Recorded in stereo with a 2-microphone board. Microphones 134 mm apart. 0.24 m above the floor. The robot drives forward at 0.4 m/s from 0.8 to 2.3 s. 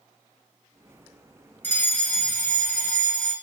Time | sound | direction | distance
1.6 | a fire alarm | 15° left (ahead or behind) | 2.0 m